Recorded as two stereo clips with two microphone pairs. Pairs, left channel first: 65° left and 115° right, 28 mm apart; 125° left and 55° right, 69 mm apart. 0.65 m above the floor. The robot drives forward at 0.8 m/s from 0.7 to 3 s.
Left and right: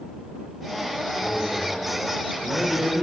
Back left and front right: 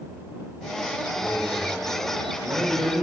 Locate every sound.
1.2 s a man speaking: 5° right, 2.5 m; by 3.0 s 10° right, 1.3 m